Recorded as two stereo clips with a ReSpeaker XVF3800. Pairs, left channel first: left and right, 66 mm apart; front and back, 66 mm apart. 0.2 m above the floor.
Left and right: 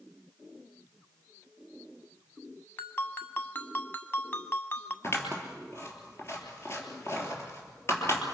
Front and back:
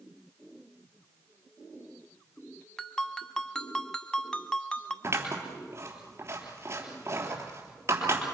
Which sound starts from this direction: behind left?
Scissors, at 5.0 s.